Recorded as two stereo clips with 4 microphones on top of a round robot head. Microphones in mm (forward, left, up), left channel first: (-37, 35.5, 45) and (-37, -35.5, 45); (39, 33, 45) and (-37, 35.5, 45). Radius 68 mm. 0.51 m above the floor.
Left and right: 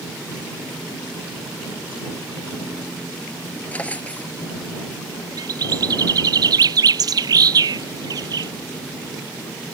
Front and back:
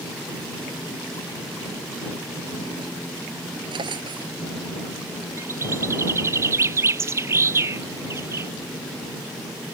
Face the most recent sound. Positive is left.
turn(degrees=-120)